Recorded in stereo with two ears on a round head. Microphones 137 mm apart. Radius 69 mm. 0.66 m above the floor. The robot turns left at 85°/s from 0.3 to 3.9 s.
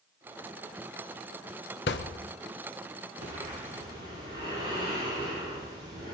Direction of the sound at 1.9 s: 80° left.